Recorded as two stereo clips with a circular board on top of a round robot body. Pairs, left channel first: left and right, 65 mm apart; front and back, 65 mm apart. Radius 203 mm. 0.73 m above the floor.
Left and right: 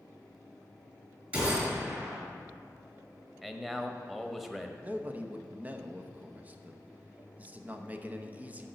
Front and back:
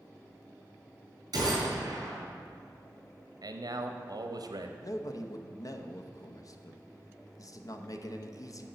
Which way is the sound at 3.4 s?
175° right.